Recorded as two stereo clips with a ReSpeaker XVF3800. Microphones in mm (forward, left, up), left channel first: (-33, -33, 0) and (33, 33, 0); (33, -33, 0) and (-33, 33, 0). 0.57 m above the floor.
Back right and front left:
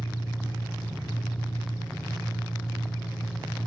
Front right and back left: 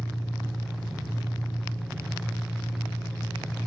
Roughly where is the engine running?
Right.